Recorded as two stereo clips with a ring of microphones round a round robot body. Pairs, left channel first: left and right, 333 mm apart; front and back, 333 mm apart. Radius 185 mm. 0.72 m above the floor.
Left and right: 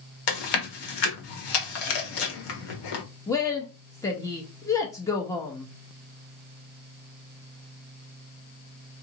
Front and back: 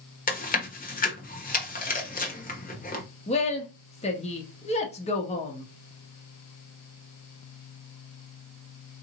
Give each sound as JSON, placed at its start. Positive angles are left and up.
{"t": 0.3, "sound": "chewing", "azimuth_deg": 65, "distance_m": 1.3}
{"t": 3.3, "sound": "a woman speaking", "azimuth_deg": 25, "distance_m": 0.7}